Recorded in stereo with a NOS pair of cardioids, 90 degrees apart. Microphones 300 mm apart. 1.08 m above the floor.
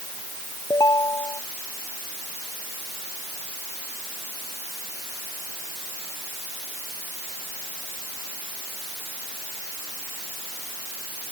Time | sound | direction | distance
0.7 | a ringtone | 10° left | ?